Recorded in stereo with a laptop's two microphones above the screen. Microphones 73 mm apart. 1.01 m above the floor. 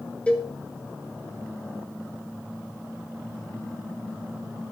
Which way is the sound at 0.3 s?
15° left (ahead or behind).